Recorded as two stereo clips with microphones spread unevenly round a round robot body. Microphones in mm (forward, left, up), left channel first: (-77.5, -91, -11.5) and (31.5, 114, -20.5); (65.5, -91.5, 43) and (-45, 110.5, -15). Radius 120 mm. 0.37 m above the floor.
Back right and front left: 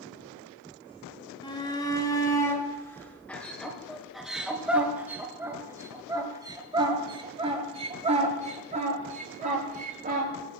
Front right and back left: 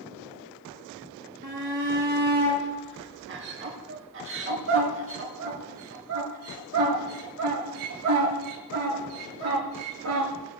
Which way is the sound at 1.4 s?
170° left.